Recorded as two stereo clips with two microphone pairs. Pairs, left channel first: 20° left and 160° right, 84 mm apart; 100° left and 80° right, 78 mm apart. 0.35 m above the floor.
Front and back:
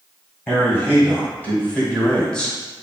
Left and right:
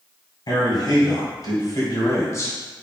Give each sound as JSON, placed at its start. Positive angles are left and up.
{"t": 0.5, "sound": "a man speaking", "azimuth_deg": 85, "distance_m": 1.9}